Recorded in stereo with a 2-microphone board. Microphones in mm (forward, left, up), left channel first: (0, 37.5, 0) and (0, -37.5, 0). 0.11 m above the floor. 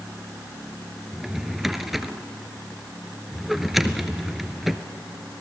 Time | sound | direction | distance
1.1 | a drawer | 5° right (ahead or behind) | 0.9 m